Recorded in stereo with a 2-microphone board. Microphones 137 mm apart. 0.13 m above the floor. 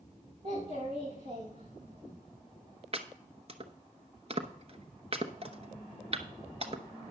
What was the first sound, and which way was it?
A child speaking, 55° right (ahead or behind).